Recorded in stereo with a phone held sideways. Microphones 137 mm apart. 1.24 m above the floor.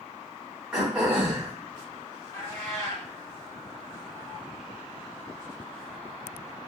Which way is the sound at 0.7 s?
5° right (ahead or behind).